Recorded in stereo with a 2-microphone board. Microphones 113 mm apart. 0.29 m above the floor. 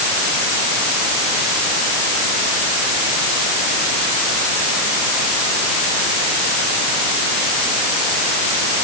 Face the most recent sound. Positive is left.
No sound to turn to.